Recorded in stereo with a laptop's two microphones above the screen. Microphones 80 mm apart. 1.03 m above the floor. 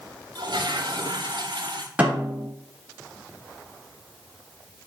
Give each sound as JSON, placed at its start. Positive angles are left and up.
{"t": 0.3, "sound": "a toilet flushing", "side_deg": -70, "distance_m": 1.8}
{"t": 2.0, "sound": "a snare drum", "side_deg": -15, "distance_m": 3.0}